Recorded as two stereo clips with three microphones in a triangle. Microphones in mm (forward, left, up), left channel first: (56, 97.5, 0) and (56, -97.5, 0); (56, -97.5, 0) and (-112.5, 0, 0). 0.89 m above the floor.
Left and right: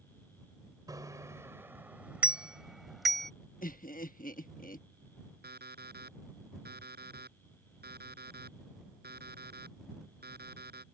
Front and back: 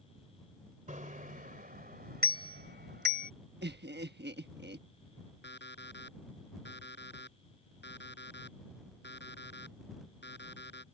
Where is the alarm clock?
55° right.